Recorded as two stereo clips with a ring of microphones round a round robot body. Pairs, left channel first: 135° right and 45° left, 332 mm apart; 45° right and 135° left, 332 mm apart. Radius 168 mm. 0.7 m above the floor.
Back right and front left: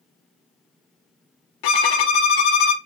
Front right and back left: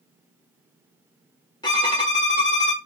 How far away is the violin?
About 0.9 m.